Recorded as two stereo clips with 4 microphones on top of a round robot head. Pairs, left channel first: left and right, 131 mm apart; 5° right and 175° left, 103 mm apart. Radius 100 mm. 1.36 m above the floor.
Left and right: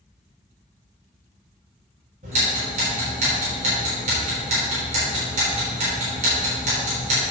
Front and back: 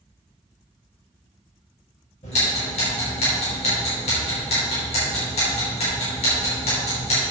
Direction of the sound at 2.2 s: 45° right.